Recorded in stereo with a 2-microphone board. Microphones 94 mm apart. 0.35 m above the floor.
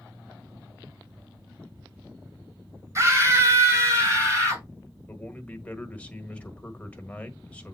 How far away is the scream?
About 2 m.